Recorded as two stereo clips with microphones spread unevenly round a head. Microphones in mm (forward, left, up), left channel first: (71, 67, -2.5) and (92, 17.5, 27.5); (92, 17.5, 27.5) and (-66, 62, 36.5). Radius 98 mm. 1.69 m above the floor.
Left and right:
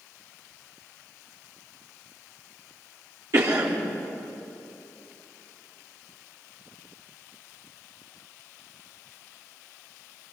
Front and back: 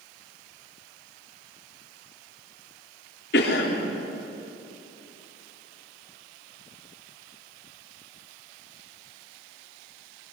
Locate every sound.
3.3 s a cough: 55° right, 4 m